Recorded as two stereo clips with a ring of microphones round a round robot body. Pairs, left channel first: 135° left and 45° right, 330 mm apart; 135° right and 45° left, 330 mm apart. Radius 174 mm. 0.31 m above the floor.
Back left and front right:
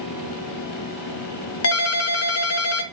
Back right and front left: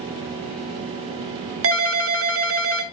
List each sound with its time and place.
1.6 s a ringtone: 90° left, 1.0 m